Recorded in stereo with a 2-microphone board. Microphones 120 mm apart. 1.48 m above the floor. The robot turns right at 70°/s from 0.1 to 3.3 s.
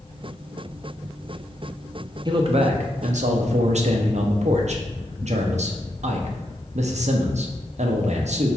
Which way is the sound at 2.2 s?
145° right.